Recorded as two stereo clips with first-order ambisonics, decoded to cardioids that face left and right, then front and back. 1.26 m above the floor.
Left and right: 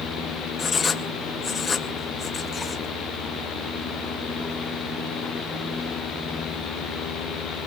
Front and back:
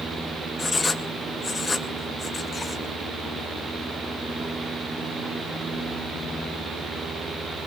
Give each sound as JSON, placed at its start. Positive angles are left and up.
{"t": 0.6, "sound": "writing", "azimuth_deg": 50, "distance_m": 0.6}